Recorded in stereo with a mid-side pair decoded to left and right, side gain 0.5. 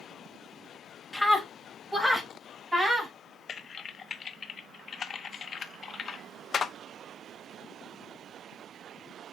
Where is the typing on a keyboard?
40° left, 0.8 m.